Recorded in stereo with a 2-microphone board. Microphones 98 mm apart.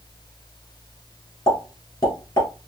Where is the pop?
40° left (ahead or behind), 1.7 m.